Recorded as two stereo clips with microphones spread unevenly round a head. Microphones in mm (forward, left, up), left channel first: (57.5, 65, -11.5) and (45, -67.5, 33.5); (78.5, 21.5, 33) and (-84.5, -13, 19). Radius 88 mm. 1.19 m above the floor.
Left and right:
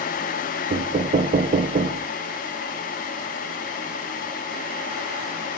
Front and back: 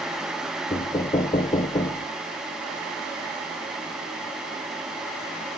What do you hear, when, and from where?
0.7 s knocking: 55° right, 0.7 m